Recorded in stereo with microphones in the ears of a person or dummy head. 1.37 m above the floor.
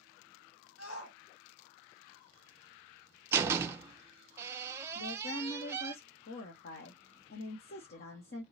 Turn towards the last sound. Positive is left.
turn(degrees=55)  # may be behind; listen again after turning